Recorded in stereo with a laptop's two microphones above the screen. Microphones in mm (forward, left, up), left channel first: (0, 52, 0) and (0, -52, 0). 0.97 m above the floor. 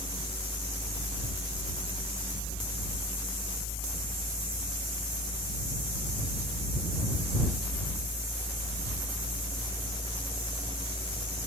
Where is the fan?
65° right (ahead or behind).